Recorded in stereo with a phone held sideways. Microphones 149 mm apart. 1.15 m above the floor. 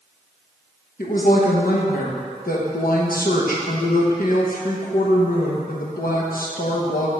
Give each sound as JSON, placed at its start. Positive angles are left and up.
{"t": 1.0, "sound": "a woman speaking", "side_deg": 70, "distance_m": 0.8}